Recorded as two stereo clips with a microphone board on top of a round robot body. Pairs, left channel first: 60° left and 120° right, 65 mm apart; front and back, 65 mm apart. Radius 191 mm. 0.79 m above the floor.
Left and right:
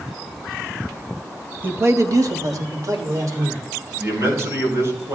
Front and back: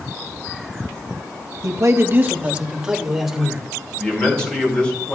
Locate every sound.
1.6 s a man speaking: 175° right, 1.1 m; by 3.6 s 95° right, 3 m
4.0 s a man speaking: 75° right, 5 m